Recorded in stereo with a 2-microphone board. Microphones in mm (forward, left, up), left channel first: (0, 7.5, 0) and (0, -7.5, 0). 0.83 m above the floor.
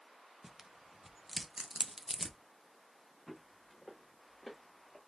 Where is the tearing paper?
20° right (ahead or behind), 0.6 m.